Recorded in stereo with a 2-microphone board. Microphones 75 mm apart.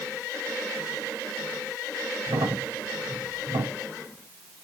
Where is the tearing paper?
I don't hear tearing paper.